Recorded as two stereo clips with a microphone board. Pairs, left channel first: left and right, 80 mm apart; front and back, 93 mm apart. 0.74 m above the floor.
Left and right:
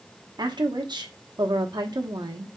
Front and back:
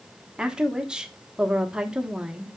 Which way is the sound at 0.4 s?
100° right.